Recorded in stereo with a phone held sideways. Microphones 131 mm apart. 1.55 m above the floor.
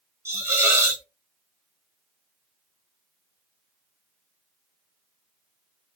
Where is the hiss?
20° right (ahead or behind), 1.0 m.